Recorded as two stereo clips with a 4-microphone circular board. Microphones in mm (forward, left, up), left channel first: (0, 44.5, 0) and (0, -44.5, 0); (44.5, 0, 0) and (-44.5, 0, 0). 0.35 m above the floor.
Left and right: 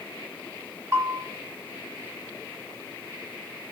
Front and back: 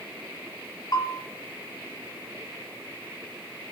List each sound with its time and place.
0.9 s a bell: 35° right, 1.0 m